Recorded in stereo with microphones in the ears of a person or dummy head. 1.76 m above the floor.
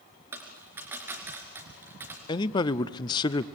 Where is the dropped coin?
15° right (ahead or behind), 3 m.